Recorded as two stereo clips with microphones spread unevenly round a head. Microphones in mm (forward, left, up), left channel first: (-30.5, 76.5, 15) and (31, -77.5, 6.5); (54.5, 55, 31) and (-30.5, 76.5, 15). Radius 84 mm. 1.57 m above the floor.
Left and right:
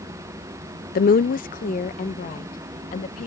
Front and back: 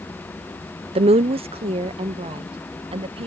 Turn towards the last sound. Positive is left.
turn(degrees=160)